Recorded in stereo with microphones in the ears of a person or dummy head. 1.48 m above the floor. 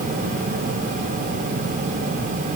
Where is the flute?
I don't hear a flute.